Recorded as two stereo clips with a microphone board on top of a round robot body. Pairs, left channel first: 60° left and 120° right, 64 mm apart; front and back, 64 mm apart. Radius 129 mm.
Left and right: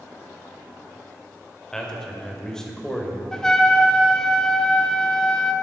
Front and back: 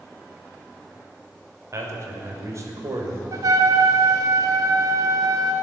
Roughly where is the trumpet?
Behind left.